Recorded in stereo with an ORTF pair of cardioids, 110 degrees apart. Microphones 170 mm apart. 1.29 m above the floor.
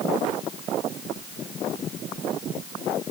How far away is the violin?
I don't hear a violin.